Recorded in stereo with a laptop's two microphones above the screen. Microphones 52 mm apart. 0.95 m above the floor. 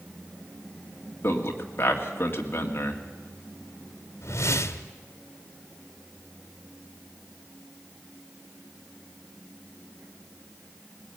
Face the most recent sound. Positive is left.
turn(degrees=65)  # may be behind; listen again after turning